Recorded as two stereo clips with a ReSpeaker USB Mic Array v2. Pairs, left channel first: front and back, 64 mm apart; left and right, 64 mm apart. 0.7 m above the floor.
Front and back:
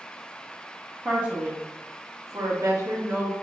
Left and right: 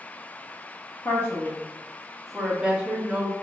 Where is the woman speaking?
125° left, 1.1 m; by 3.3 s 150° right, 1.5 m.